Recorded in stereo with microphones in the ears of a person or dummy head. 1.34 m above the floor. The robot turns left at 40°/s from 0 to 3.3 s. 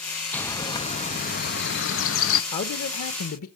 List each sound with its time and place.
0.3 s a bird: 170° left, 0.7 m; by 2.4 s 90° left, 0.7 m
2.5 s a man speaking: 130° left, 1.0 m; by 3.5 s 100° left, 1.0 m